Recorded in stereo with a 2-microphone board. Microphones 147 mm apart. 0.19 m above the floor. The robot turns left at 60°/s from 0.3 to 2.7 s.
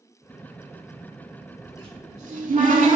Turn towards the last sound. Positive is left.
turn(degrees=-95)